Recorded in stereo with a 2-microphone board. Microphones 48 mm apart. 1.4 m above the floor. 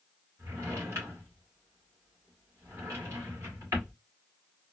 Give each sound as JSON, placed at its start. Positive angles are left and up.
{"t": 0.4, "sound": "a drawer", "side_deg": -65, "distance_m": 2.5}